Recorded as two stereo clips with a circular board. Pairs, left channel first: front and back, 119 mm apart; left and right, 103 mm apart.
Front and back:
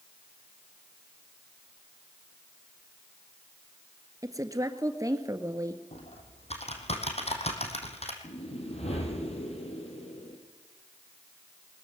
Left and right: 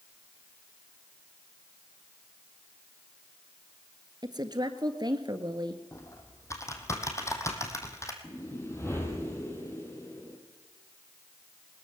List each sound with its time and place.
4.2 s a woman speaking: 125° right, 1.8 m
5.9 s typing on a keyboard: 30° left, 3 m
8.2 s a whoosh: 25° left, 4.5 m